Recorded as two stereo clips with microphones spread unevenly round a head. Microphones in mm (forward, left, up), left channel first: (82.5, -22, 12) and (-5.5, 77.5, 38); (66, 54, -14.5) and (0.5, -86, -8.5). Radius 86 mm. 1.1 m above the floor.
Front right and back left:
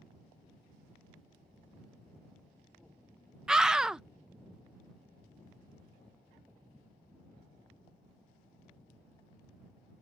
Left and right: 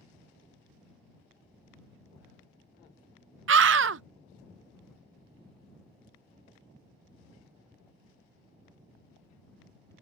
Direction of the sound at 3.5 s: 140° right.